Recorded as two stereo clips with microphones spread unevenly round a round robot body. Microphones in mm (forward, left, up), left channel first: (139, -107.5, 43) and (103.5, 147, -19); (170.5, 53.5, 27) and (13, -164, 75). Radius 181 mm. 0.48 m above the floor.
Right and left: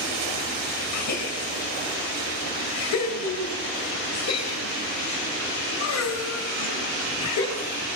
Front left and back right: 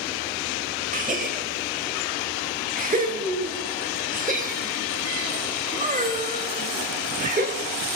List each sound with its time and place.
0.9 s a gasp: 65° right, 3.5 m